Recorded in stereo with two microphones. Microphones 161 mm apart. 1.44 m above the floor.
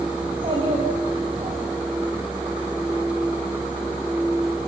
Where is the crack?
No crack in this recording.